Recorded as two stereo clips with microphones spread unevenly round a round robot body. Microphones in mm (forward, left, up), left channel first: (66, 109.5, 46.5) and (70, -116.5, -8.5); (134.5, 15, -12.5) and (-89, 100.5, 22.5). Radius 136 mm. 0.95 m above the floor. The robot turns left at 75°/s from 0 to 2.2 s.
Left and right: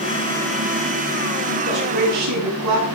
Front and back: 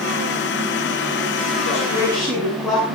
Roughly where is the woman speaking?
Right.